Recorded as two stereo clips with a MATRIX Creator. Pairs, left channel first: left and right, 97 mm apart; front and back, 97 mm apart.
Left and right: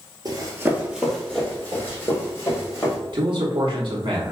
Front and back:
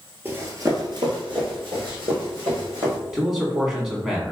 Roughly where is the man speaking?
Right.